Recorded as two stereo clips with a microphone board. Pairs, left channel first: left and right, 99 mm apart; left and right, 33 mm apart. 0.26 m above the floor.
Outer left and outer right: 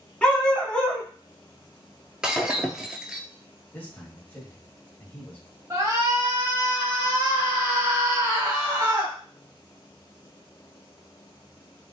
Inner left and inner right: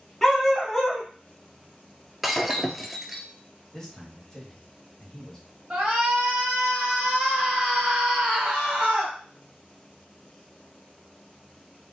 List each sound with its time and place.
0.2 s a dog barking: 10° left (ahead or behind), 1.1 m
2.2 s breaking glass: 10° right (ahead or behind), 0.6 m
3.7 s a man speaking: 20° left (ahead or behind), 1.2 m
5.7 s a shout: 35° right (ahead or behind), 1.4 m